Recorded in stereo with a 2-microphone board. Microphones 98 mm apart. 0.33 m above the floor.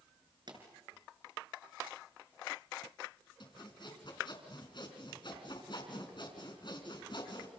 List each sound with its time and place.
0.5 s a pop: 50° right (ahead or behind), 4.5 m
3.4 s sawing: 55° left (ahead or behind), 4 m